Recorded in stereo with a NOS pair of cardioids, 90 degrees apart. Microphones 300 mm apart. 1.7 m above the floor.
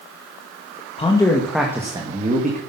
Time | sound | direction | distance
1.0 | a man speaking | 20° left | 2 m